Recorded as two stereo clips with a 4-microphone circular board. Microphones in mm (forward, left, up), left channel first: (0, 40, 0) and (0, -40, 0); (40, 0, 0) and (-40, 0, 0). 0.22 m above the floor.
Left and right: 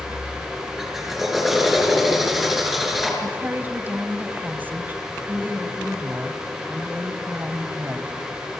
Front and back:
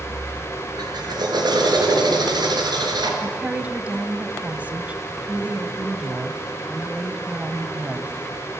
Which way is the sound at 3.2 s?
125° right.